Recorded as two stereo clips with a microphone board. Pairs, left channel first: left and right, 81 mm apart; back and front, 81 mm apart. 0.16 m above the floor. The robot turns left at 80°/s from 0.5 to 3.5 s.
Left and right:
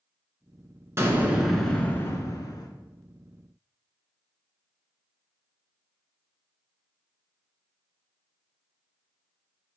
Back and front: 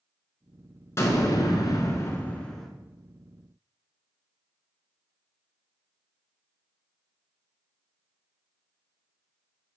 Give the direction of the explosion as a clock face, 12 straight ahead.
4 o'clock.